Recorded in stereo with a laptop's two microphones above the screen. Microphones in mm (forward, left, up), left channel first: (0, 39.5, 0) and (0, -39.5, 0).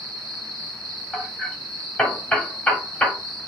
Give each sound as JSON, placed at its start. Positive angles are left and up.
{"t": 0.0, "sound": "an insect", "side_deg": -70, "distance_m": 1.5}
{"t": 1.1, "sound": "hammering", "side_deg": 10, "distance_m": 0.9}